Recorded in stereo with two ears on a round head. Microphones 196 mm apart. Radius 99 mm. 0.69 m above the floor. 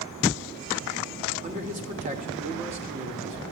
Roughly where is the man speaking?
Right.